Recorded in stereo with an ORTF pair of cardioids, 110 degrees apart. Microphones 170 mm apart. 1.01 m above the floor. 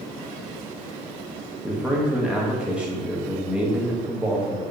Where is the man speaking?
5° right, 1.0 m.